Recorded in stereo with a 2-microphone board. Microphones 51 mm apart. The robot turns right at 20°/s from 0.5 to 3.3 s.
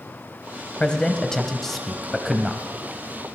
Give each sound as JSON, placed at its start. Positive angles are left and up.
{"t": 0.8, "sound": "a man speaking", "azimuth_deg": 155, "distance_m": 1.5}